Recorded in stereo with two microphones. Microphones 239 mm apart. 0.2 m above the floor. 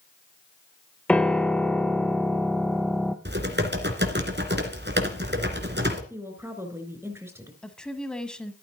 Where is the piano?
5° left (ahead or behind), 0.8 m.